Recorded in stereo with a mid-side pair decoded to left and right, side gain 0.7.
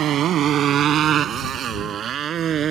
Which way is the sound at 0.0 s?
50° right.